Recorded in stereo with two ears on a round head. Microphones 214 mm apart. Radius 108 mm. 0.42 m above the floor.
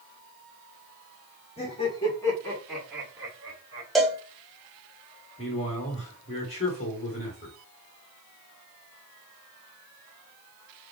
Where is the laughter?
30° left (ahead or behind), 1.4 m; by 3.9 s 20° right (ahead or behind), 1.5 m.